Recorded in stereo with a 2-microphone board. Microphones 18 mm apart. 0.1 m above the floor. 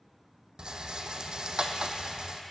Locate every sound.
0.6 s a rattle: 60° right (ahead or behind), 1.0 m